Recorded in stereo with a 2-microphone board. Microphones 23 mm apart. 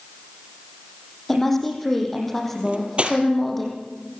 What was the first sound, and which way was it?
A woman speaking, 5° left (ahead or behind).